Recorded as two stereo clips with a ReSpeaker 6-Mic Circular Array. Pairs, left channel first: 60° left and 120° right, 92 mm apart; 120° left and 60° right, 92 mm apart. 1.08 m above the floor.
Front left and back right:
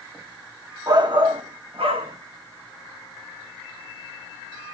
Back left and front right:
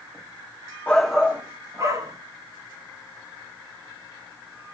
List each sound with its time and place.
0.9 s a shout: 165° right, 1.0 m; by 2.2 s 110° right, 1.8 m